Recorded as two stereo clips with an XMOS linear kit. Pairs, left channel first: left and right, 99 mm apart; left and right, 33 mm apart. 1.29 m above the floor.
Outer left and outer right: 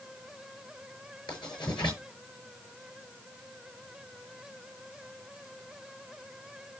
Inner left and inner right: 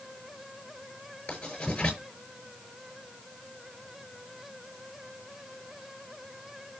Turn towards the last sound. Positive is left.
turn(degrees=50)  # may be behind; listen again after turning